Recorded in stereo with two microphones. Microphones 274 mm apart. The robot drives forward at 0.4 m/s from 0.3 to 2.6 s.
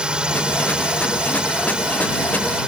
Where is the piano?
I don't hear a piano.